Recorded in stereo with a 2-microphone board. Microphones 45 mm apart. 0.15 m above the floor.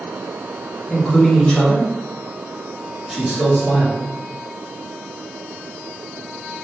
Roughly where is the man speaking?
Left.